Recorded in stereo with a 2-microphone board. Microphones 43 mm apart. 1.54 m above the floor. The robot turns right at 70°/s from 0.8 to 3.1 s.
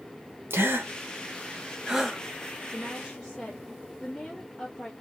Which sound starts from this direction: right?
A gasp, at 0.5 s.